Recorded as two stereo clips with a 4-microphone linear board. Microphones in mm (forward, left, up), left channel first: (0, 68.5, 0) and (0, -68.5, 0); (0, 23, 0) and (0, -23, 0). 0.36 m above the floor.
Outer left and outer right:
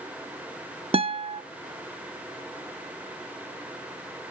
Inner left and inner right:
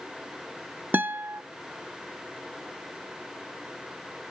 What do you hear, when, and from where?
0.9 s a guitar: 45° right (ahead or behind), 0.7 m